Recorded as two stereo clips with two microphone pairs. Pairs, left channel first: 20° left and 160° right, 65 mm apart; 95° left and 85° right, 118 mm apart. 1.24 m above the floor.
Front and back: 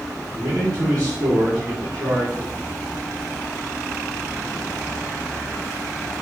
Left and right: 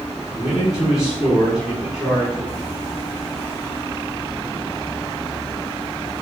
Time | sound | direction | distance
0.3 | a man speaking | 170° right | 2.5 m